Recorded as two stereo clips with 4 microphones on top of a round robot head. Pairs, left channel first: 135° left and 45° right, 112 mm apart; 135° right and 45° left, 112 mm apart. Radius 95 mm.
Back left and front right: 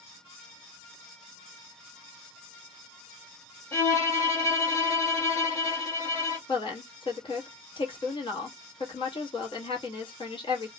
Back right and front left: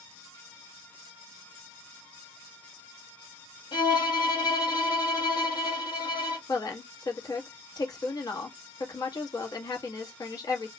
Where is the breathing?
I don't hear breathing.